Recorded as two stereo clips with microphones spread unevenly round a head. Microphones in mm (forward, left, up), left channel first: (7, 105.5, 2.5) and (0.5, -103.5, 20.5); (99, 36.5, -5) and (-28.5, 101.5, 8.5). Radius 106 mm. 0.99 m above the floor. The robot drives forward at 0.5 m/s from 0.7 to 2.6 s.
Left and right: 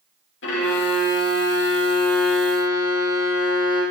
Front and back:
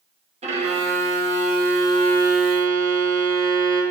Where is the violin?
110° left, 1.9 m; by 3.8 s 135° left, 2.5 m.